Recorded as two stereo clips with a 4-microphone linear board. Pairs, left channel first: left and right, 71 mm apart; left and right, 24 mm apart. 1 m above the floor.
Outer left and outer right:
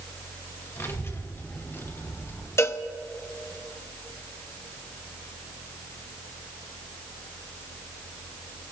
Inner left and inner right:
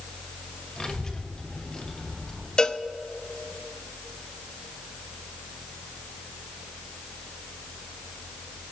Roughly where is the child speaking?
Left.